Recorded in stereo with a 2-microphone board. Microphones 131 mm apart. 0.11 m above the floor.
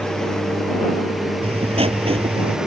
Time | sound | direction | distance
0.0 | a lawn mower | 5° left (ahead or behind) | ?
1.4 | writing | 60° right (ahead or behind) | ?